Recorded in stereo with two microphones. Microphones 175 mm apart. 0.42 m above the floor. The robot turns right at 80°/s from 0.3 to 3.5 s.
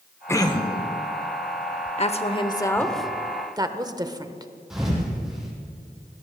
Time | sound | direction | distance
0.3 | throat clearing | 20° left | 1.0 m
2.0 | a woman speaking | 40° left (ahead or behind) | 1.0 m
4.7 | a thud | centre (ahead or behind) | 4.5 m